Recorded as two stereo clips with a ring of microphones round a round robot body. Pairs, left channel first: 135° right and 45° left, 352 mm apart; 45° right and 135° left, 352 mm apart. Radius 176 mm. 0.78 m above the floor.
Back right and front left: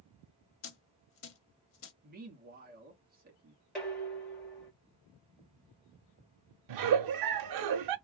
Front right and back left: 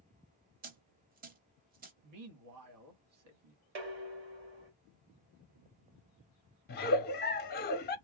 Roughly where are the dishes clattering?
Behind left.